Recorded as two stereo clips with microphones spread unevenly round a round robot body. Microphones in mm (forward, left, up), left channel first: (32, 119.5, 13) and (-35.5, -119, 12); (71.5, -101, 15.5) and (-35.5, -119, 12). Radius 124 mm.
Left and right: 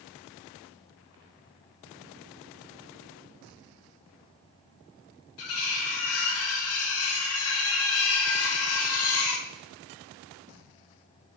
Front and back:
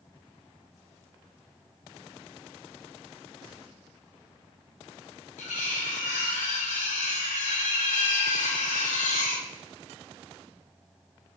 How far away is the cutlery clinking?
About 1.0 m.